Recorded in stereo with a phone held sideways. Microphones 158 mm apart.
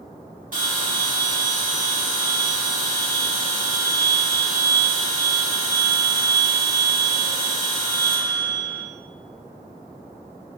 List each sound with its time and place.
0.5 s a bell: 60° right (ahead or behind), 1.7 m